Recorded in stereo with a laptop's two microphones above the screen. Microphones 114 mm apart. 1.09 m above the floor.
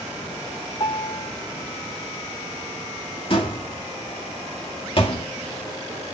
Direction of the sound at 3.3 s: 50° left (ahead or behind).